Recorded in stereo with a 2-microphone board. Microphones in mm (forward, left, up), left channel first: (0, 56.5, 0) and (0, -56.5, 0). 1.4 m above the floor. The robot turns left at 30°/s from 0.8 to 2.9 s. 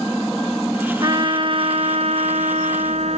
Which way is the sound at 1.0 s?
40° right.